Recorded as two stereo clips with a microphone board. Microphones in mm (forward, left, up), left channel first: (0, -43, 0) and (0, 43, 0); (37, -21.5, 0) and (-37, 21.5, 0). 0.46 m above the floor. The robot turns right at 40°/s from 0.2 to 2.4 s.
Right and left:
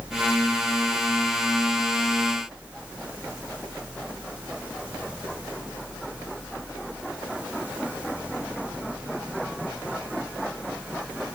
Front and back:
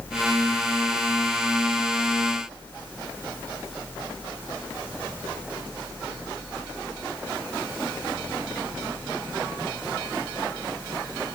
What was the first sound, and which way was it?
Only background noise.